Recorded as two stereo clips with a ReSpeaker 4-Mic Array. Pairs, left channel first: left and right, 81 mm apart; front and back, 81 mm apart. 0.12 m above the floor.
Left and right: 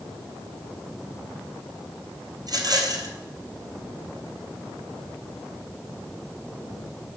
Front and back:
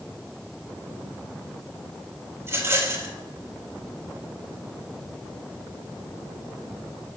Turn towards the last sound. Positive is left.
turn(degrees=-120)